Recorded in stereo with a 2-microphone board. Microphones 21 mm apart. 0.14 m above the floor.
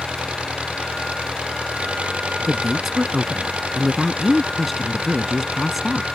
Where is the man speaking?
5° right (ahead or behind).